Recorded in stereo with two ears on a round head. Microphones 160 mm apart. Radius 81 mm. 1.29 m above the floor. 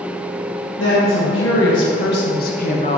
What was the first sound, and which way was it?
A woman speaking, 75° left (ahead or behind).